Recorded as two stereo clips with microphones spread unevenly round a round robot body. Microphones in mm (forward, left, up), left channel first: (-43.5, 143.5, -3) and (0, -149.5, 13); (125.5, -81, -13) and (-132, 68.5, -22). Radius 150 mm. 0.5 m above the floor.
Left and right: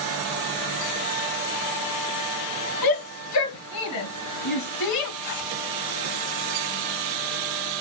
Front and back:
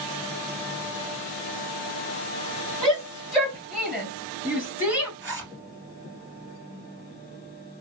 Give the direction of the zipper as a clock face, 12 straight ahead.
9 o'clock.